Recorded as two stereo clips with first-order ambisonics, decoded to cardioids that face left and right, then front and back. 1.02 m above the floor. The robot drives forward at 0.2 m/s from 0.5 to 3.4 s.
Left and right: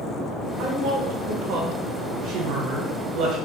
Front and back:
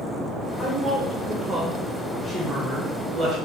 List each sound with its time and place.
0.6 s a woman speaking: 70° right, 0.7 m; by 3.4 s 125° right, 0.7 m